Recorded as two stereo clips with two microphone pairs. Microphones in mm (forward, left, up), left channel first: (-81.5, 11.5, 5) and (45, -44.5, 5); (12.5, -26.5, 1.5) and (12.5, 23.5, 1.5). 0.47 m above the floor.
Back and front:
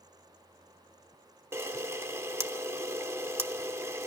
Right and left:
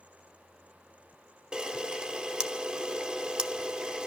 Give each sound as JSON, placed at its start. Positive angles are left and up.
{"t": 1.5, "sound": "a camera shutter", "azimuth_deg": 30, "distance_m": 0.8}